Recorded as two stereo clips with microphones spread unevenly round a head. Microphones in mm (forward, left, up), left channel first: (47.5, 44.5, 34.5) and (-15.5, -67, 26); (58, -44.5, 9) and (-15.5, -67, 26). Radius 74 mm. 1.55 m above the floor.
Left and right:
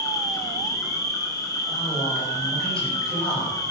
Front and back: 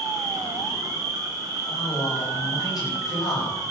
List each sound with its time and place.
0.0 s an insect: 125° left, 2.5 m
1.7 s a man speaking: 20° right, 9.5 m